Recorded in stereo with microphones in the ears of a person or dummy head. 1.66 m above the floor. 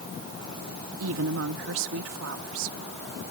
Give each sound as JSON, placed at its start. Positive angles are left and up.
{"t": 1.0, "sound": "a woman speaking", "side_deg": -80}